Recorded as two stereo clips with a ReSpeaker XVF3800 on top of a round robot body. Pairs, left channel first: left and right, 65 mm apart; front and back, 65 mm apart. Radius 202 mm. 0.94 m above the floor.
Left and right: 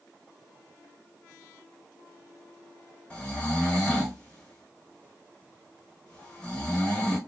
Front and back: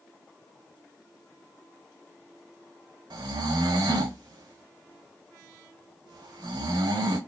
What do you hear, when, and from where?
3.1 s snoring: 165° left, 0.5 m